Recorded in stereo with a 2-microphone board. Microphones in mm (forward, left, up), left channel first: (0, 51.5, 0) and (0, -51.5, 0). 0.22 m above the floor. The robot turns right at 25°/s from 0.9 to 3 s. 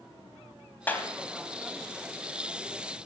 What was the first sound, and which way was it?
A clap, 20° left (ahead or behind).